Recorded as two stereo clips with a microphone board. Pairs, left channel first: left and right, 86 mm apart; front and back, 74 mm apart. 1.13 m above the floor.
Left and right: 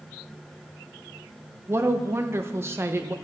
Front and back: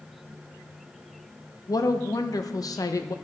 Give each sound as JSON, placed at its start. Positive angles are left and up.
{"t": 1.7, "sound": "a woman speaking", "azimuth_deg": -30, "distance_m": 0.8}